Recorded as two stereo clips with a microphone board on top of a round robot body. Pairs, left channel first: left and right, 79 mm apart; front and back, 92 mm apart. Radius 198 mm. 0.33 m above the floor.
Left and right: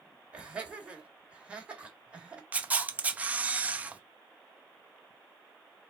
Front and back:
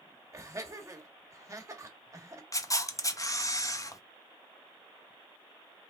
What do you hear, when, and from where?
0.3 s laughter: 155° right, 1.6 m
2.5 s a camera shutter: 25° right, 0.8 m